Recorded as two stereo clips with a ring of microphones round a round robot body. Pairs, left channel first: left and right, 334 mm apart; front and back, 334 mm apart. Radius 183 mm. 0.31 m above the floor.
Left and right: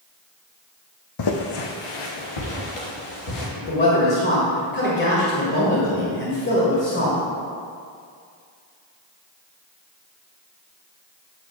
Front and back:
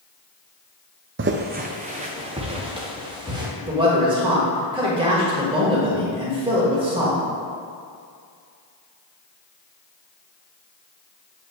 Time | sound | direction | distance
1.2 | footsteps | 125° left | 0.7 m
3.6 | a man speaking | 115° left | 1.7 m